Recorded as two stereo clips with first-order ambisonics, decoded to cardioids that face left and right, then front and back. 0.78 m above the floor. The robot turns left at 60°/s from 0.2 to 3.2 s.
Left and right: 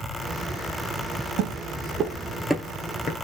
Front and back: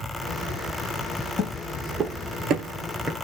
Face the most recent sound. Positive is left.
turn(degrees=100)